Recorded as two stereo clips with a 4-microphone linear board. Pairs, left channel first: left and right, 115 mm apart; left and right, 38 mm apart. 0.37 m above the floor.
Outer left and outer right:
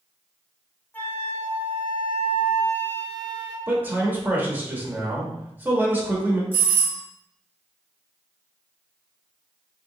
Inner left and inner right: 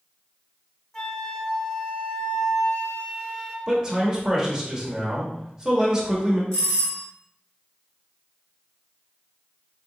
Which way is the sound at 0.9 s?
15° left (ahead or behind).